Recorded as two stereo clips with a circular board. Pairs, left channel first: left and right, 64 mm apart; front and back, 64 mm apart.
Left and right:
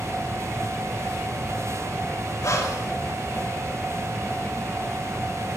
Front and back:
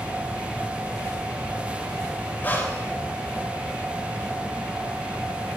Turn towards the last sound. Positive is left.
turn(degrees=60)